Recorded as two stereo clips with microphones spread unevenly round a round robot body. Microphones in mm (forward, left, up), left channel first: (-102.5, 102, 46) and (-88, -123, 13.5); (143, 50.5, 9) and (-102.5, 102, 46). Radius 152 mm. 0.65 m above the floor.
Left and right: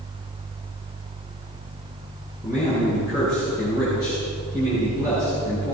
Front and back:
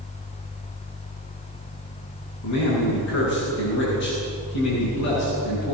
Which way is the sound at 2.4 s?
5° right.